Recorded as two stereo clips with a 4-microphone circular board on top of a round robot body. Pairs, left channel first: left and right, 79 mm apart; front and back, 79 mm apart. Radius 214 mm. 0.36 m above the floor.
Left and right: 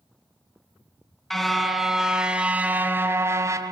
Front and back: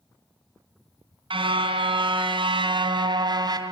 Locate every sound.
1.3 s a car horn: 175° left, 2.5 m; by 3.7 s 140° right, 1.8 m